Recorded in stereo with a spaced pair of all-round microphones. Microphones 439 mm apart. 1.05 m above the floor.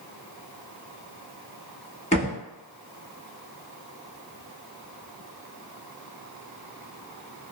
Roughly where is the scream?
No scream in this recording.